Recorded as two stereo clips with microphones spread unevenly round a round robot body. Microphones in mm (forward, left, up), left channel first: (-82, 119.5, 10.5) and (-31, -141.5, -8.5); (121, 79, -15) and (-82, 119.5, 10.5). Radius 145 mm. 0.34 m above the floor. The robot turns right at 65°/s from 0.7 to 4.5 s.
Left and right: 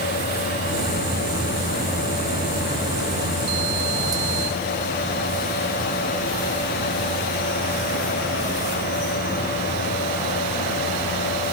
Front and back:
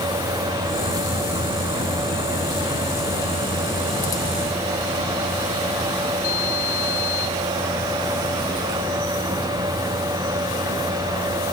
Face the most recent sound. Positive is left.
No sound to turn to.